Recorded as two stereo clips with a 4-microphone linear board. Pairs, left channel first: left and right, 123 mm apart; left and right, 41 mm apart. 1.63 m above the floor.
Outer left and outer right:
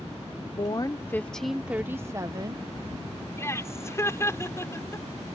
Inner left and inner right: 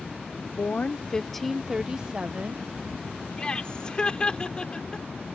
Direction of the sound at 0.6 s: 40° left (ahead or behind).